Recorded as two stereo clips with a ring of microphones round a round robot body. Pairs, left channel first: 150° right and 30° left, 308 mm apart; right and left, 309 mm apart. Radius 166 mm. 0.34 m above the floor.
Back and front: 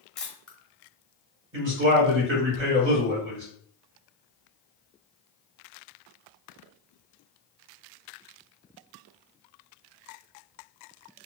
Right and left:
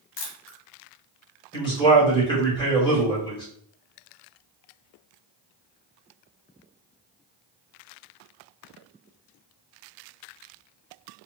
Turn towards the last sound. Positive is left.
turn(degrees=-15)